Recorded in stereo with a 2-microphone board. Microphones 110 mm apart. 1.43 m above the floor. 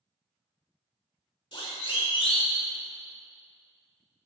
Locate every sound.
1.5 s a siren: 50° left (ahead or behind), 5.5 m; by 2.6 s 55° left (ahead or behind), 4 m